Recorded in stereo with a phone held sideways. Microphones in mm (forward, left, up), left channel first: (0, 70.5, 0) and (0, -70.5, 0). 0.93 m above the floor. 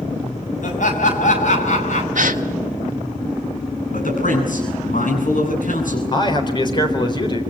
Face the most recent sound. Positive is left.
turn(degrees=35)  # may be behind; listen again after turning